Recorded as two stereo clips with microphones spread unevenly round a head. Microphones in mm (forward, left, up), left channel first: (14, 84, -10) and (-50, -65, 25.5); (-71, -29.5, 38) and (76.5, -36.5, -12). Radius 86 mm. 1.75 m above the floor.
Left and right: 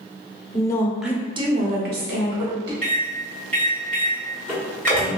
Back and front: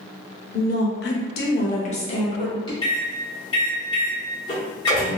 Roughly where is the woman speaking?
Behind left.